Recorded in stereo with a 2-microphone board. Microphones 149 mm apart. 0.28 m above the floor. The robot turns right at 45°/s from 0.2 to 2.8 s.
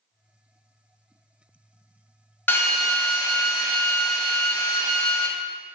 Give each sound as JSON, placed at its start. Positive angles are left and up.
{"t": 2.5, "sound": "a drill", "side_deg": 15, "distance_m": 0.6}